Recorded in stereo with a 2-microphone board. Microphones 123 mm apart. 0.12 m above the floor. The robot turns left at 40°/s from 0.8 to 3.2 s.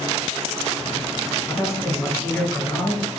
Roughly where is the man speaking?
Left.